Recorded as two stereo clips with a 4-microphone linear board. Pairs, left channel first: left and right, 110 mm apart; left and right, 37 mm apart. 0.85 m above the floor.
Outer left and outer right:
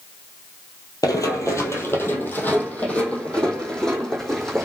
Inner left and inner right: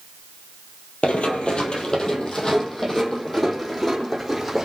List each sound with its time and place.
1.0 s running footsteps: 35° left (ahead or behind), 1.6 m; by 4.7 s centre (ahead or behind), 3 m